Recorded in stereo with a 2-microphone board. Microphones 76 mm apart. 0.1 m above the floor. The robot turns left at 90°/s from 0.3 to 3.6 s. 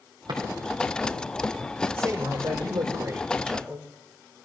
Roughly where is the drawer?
Right.